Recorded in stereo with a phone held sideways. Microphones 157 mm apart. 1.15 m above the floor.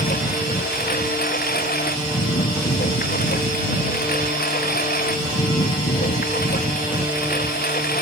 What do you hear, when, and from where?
0.0 s a lawn mower: 70° left (ahead or behind)